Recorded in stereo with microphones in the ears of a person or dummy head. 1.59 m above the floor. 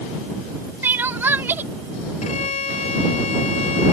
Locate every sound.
0.8 s crying: 10° right (ahead or behind)
2.2 s a violin: 40° left (ahead or behind)